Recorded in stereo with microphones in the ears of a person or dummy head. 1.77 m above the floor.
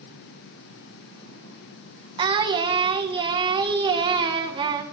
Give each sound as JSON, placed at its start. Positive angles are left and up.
{"t": 2.2, "sound": "singing", "side_deg": -25, "distance_m": 1.6}